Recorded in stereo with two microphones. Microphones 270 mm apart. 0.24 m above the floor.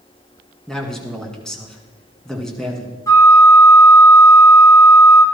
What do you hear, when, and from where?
0.7 s a man speaking: centre (ahead or behind), 2.5 m
3.1 s a flute: 10° left (ahead or behind), 1.7 m